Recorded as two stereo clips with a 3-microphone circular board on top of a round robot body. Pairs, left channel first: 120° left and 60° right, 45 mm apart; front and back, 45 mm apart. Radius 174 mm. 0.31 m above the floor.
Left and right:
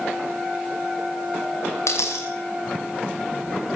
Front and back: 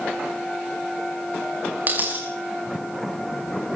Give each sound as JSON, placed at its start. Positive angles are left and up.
{"t": 1.9, "sound": "a dropped coin", "azimuth_deg": 125, "distance_m": 6.0}